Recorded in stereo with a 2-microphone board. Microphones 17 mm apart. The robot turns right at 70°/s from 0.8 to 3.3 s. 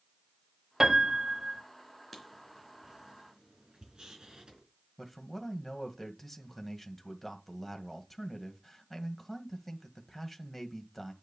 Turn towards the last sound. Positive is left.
turn(degrees=10)  # may be behind; listen again after turning